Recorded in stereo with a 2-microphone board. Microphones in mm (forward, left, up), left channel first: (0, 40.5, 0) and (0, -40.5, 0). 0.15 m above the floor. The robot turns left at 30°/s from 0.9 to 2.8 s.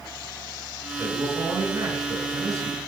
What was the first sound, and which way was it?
A man speaking, 50° right.